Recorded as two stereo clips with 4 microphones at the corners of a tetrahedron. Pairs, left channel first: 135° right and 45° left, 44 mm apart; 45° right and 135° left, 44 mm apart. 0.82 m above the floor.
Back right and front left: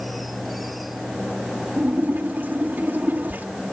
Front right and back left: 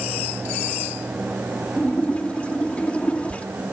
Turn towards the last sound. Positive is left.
turn(degrees=10)